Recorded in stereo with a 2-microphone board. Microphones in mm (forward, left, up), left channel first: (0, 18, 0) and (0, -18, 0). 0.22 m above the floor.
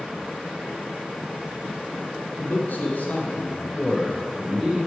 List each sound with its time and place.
2.4 s a man speaking: 55° left (ahead or behind), 1.7 m; by 4.9 s 20° right (ahead or behind), 1.0 m